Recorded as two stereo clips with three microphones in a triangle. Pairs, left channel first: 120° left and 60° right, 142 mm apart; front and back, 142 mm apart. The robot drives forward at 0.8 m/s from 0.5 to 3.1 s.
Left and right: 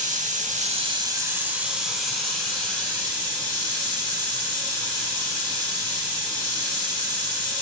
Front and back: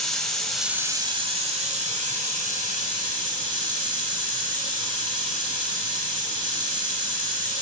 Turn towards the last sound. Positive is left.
turn(degrees=-160)